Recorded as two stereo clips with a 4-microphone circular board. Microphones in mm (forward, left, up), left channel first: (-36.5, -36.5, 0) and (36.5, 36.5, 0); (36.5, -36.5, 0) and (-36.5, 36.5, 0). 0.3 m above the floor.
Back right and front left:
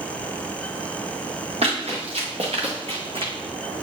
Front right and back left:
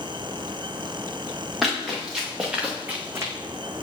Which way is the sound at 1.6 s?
45° left.